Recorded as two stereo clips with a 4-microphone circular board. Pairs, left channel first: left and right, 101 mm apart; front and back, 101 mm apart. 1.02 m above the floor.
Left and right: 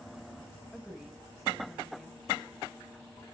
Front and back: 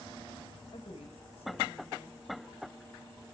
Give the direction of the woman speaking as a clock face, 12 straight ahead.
12 o'clock.